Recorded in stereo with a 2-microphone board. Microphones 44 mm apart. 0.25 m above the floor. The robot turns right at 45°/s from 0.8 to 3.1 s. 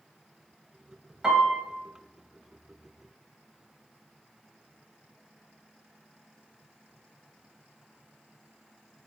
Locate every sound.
1.2 s a piano: 10° right (ahead or behind), 0.9 m; by 1.6 s 20° right (ahead or behind), 0.9 m